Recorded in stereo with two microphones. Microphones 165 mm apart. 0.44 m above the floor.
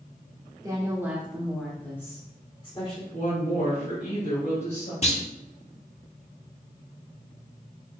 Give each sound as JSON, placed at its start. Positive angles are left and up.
{"t": 0.6, "sound": "a woman speaking", "side_deg": -25, "distance_m": 1.2}
{"t": 3.1, "sound": "a woman speaking", "side_deg": 60, "distance_m": 2.5}
{"t": 5.0, "sound": "a clunk", "side_deg": 40, "distance_m": 0.7}